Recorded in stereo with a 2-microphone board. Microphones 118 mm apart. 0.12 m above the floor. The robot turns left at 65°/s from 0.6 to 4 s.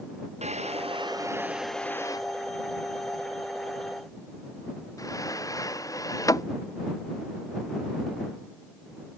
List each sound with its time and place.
0.4 s a drawer: 70° right (ahead or behind); by 6.5 s 30° left (ahead or behind)